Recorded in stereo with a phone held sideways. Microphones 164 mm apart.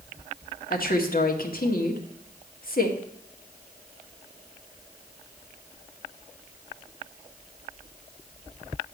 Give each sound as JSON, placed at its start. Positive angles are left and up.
{"t": 0.7, "sound": "a woman speaking", "side_deg": 65, "distance_m": 1.6}